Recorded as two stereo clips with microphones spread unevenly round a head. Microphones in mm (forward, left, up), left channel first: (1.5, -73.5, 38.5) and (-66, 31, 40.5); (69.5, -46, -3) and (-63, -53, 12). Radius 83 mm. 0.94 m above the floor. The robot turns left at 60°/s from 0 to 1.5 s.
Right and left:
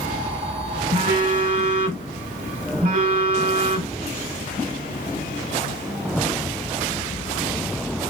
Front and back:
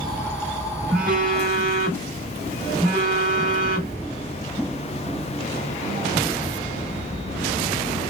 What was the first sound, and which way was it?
A phone buzzing, 155° left.